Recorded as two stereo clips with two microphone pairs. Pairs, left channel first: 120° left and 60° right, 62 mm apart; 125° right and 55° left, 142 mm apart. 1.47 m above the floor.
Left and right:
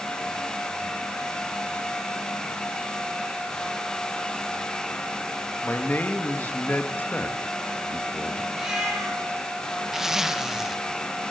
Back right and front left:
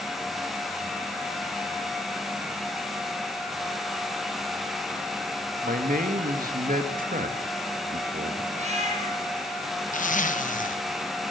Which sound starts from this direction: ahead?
A cat meowing, at 8.5 s.